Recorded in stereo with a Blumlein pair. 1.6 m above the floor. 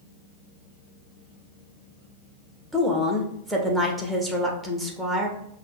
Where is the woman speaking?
5° right, 1.1 m.